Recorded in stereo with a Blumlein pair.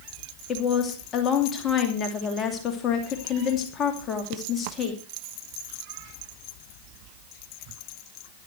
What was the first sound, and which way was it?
A woman speaking, 25° left.